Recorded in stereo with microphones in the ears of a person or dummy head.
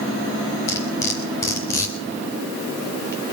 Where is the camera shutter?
No camera shutter in this recording.